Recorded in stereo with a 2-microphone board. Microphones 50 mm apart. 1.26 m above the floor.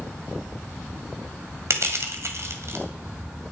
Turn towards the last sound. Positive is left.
turn(degrees=-60)  # may be behind; listen again after turning